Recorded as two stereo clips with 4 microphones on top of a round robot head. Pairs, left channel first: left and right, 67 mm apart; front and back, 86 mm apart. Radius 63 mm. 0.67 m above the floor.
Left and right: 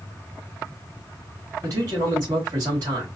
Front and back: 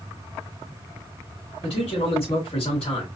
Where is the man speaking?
35° right, 2.5 m.